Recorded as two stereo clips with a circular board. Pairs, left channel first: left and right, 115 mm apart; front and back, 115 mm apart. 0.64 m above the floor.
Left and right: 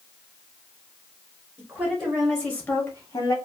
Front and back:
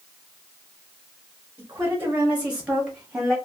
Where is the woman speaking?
140° right, 1.1 m; by 3.4 s 95° left, 1.2 m.